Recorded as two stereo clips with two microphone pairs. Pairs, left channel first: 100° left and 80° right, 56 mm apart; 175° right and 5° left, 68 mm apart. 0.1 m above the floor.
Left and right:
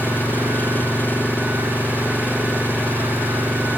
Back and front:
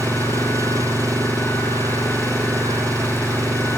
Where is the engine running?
45° left.